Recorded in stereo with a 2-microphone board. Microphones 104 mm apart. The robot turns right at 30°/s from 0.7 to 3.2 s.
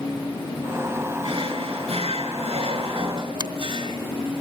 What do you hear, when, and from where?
1.2 s a drawer: 115° right, 3.5 m; by 4.0 s 55° right, 3.5 m
3.4 s a finger snap: 45° right (ahead or behind), 1.0 m